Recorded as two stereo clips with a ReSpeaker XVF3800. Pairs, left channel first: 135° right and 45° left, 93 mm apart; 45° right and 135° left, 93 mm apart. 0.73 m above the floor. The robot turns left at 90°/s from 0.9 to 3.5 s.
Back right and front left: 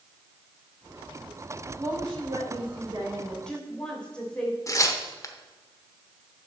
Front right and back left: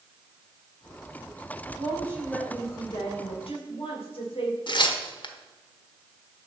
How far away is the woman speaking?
About 2.5 m.